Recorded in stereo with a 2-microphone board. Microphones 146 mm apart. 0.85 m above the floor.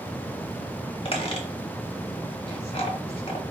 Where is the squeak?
45° left (ahead or behind), 0.9 m.